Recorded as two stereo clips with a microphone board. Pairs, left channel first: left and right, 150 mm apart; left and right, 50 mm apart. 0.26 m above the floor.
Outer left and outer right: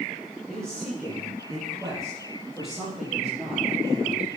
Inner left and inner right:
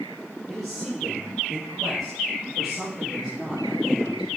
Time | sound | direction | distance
0.5 | a man speaking | 5° left (ahead or behind) | 5.5 m